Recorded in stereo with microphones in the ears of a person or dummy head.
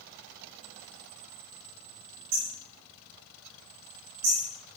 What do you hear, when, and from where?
2.3 s hammering: 80° right, 10 m